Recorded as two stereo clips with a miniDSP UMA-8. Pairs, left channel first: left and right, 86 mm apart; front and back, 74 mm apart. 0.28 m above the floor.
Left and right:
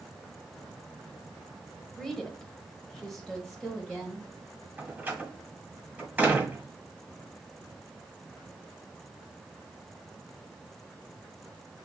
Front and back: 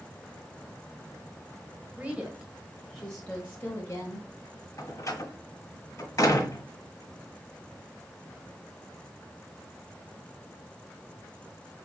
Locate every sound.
2.0 s a woman speaking: 165° left, 1.3 m; by 4.3 s 5° left, 1.5 m
4.8 s a door slam: 20° right, 1.5 m